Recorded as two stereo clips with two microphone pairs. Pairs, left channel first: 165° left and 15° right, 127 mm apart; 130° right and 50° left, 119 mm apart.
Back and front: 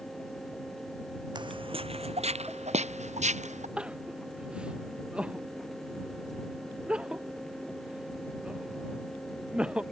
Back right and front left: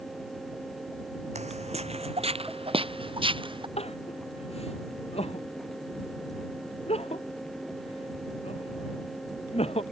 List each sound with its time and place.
1.4 s footsteps: 40° left; by 3.7 s 10° left
3.8 s crying: 95° right